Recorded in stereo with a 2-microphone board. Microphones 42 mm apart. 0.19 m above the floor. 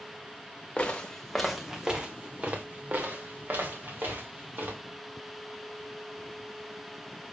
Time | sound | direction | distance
0.8 | footsteps | 30° left (ahead or behind) | 0.9 m